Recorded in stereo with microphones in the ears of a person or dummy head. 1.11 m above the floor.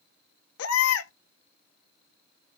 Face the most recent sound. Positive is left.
turn(degrees=70)  # may be behind; listen again after turning